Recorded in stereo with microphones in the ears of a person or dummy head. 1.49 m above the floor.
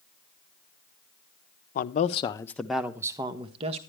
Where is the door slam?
No door slam in this recording.